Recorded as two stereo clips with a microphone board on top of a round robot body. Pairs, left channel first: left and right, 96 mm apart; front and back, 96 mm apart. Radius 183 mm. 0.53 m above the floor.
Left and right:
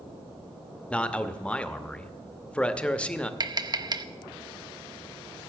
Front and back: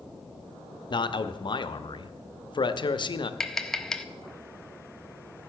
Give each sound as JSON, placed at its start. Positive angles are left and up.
{"t": 0.9, "sound": "a man speaking", "azimuth_deg": 15, "distance_m": 1.0}
{"t": 3.4, "sound": "tapping", "azimuth_deg": -85, "distance_m": 0.9}